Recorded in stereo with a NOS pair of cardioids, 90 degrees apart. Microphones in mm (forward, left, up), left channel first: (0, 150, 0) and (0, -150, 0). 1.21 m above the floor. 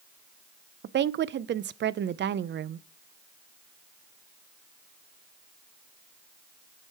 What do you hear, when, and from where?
0.8 s a woman speaking: 40° right, 0.5 m